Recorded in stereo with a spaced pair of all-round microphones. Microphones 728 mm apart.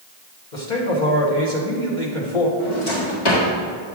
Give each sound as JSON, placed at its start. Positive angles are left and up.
{"t": 0.5, "sound": "a man speaking", "side_deg": 85, "distance_m": 2.0}
{"t": 2.6, "sound": "a drawer", "side_deg": 75, "distance_m": 1.9}